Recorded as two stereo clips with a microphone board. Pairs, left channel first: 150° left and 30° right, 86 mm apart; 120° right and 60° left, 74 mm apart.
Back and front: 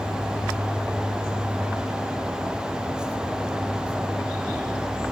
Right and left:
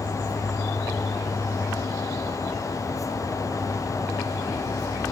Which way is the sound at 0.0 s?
15° left.